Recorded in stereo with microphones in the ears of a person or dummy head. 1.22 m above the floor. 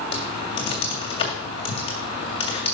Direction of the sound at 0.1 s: 30° left (ahead or behind).